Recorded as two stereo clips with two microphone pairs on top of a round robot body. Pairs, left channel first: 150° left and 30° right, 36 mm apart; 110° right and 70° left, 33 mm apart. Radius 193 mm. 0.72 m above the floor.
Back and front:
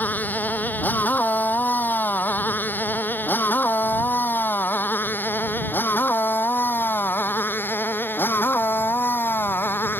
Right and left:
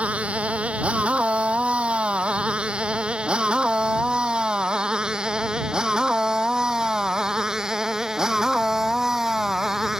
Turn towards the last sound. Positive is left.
turn(degrees=145)